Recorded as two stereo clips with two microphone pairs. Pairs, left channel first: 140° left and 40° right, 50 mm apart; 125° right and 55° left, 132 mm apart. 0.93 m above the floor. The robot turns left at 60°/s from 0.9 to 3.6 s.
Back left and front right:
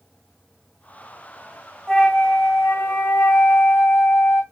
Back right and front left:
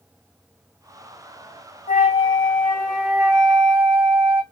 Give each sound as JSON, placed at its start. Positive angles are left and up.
{"t": 1.9, "sound": "a flute", "azimuth_deg": -145, "distance_m": 1.8}